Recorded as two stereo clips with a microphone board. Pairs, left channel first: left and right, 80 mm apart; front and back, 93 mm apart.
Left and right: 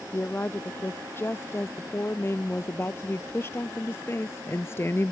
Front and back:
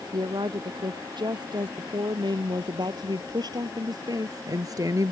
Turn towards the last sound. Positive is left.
turn(degrees=140)